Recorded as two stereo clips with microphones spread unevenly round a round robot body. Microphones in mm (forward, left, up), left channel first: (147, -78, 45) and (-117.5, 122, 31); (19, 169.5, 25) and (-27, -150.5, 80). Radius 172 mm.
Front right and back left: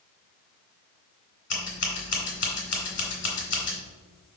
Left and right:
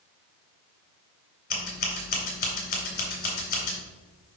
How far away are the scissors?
About 2.5 m.